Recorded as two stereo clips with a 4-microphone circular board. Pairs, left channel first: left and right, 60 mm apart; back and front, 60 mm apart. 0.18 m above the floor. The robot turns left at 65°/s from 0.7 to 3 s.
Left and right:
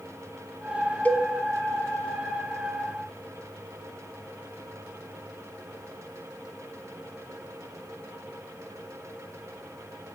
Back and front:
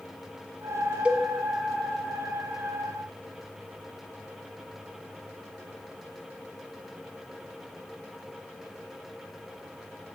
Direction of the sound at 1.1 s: 55° left.